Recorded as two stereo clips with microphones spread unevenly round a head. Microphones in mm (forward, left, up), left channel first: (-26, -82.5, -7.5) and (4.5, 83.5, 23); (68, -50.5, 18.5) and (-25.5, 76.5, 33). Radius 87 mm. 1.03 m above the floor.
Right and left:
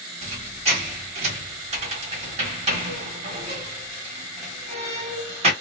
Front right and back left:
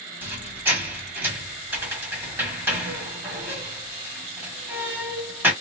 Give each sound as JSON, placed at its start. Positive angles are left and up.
{"t": 0.2, "sound": "a squeak", "azimuth_deg": 55, "distance_m": 1.1}